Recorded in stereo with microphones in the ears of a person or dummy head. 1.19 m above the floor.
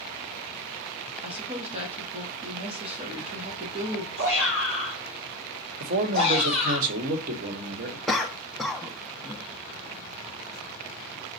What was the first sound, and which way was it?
A woman speaking, 30° right (ahead or behind).